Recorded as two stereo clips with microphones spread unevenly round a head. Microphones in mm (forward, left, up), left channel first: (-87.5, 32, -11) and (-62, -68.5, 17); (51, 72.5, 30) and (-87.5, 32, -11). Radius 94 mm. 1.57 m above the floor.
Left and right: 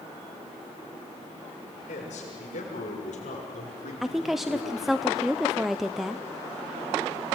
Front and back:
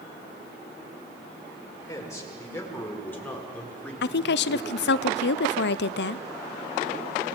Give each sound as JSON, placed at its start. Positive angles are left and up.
{"t": 1.9, "sound": "a man speaking", "azimuth_deg": 85, "distance_m": 6.0}
{"t": 4.0, "sound": "a woman speaking", "azimuth_deg": 15, "distance_m": 0.7}